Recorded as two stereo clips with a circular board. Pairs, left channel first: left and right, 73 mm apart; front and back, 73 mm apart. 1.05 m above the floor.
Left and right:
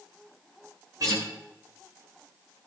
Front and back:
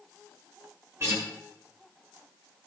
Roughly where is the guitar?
Behind right.